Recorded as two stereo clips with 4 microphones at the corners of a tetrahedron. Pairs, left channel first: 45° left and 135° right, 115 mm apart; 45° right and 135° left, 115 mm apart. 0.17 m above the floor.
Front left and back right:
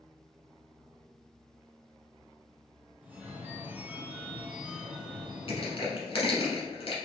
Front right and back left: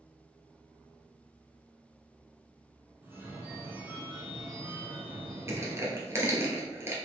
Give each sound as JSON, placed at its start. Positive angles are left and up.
{"t": 3.0, "sound": "a phone ringing", "azimuth_deg": 175, "distance_m": 0.9}
{"t": 5.5, "sound": "crushing", "azimuth_deg": 75, "distance_m": 1.2}